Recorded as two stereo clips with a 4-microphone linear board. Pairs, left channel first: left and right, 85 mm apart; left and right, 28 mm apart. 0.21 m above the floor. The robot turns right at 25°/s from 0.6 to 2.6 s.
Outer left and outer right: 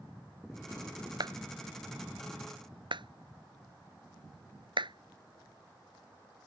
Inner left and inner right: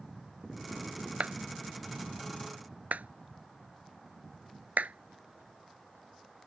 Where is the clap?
55° right (ahead or behind); by 6.5 s 70° right (ahead or behind).